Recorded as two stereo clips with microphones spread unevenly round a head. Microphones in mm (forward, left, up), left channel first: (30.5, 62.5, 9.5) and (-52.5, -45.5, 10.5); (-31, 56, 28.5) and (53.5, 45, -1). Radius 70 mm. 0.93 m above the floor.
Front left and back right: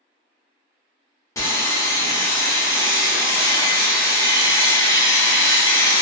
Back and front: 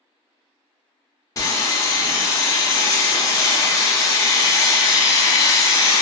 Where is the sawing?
125° left, 0.8 m.